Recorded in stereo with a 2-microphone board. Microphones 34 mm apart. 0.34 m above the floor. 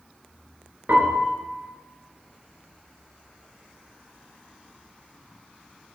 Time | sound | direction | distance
0.9 | a piano | 75° right (ahead or behind) | 3 m